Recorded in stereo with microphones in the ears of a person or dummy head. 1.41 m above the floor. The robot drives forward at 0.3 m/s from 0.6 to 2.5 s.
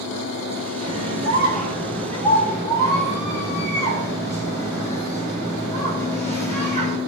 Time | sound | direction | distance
0.8 | a scream | 30° left (ahead or behind) | 5.5 m